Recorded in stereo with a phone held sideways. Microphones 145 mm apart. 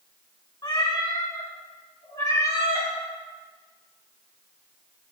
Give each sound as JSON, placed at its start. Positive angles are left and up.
{"t": 0.6, "sound": "a cat meowing", "side_deg": 30, "distance_m": 2.5}